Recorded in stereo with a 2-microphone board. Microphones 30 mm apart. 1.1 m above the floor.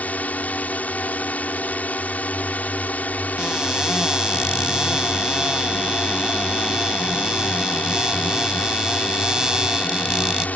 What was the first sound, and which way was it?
A drone, 60° left (ahead or behind).